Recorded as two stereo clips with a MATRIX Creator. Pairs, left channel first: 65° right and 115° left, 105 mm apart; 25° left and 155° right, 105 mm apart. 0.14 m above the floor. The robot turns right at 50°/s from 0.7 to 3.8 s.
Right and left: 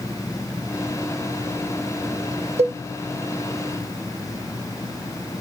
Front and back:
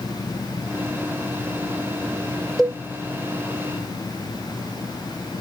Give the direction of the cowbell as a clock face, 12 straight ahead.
8 o'clock.